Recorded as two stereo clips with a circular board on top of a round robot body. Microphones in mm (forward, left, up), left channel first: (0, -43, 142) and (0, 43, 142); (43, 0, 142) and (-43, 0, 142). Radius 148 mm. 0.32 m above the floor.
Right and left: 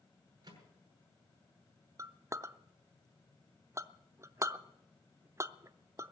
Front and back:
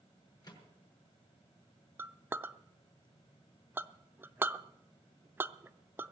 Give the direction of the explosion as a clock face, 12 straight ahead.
No explosion in this recording.